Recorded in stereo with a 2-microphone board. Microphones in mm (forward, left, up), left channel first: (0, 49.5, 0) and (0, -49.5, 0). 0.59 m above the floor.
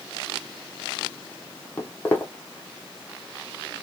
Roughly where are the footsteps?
Centre.